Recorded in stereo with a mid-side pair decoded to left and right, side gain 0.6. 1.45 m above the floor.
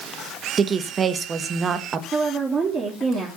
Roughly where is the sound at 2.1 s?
Ahead right.